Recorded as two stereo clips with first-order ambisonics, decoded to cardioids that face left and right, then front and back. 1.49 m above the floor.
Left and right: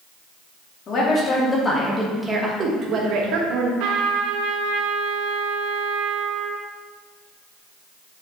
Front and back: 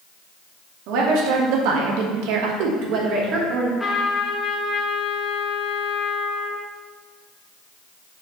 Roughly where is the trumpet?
Right.